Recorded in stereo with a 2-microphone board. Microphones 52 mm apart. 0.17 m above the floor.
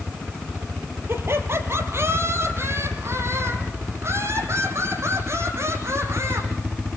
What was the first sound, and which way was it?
Laughter, 50° right (ahead or behind).